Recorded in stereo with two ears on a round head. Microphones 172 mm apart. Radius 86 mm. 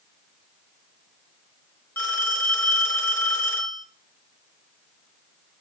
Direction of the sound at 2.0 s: 15° left (ahead or behind).